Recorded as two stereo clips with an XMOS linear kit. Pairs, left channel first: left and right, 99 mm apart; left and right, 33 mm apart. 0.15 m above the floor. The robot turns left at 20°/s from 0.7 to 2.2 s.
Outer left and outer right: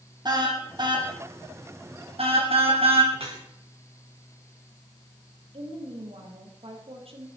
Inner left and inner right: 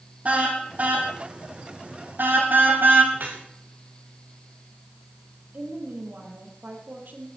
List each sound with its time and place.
0.2 s a car horn: 45° right (ahead or behind), 4 m; by 3.0 s 75° right (ahead or behind), 4 m
3.1 s dripping: 75° right (ahead or behind), 5 m
5.5 s a woman speaking: 70° right (ahead or behind), 5 m